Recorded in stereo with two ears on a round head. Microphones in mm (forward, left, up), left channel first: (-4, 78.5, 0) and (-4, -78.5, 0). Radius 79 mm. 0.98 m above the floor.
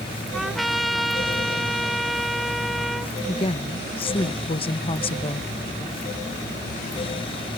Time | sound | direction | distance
0.3 | a trumpet | centre (ahead or behind) | ?
3.3 | a woman speaking | 30° left (ahead or behind) | ?